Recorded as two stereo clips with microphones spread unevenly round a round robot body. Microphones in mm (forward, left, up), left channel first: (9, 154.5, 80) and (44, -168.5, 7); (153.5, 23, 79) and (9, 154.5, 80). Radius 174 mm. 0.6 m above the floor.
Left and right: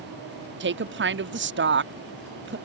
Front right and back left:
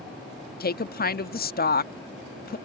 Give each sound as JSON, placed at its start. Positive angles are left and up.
{"t": 0.6, "sound": "a woman speaking", "azimuth_deg": -55}